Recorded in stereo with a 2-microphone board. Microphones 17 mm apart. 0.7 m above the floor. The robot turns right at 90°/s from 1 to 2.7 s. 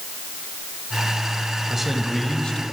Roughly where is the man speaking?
Ahead.